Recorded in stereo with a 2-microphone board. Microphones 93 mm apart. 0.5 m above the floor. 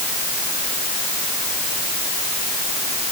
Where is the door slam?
No door slam in this recording.